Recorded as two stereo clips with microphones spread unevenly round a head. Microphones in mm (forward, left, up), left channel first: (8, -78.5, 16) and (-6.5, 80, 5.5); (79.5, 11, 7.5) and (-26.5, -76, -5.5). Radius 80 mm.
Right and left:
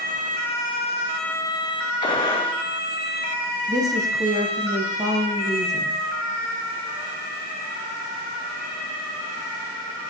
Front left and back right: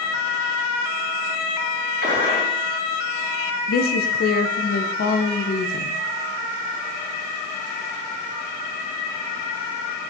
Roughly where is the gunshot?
Behind right.